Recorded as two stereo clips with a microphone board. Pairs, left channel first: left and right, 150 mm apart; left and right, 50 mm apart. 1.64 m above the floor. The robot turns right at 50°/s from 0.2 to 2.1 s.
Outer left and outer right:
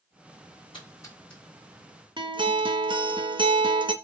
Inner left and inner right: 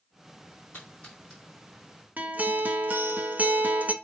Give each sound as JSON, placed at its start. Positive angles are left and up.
{"t": 0.7, "sound": "a splash", "side_deg": 35, "distance_m": 4.5}
{"t": 2.2, "sound": "a guitar", "side_deg": -35, "distance_m": 0.8}